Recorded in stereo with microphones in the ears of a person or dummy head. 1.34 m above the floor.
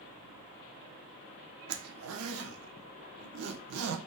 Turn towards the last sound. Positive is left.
turn(degrees=-90)